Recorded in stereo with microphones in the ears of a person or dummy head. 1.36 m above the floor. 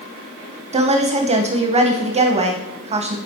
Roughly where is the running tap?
I don't hear a running tap.